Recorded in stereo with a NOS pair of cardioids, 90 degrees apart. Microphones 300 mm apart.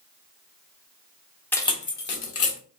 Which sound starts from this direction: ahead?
Keys jangling, at 1.5 s.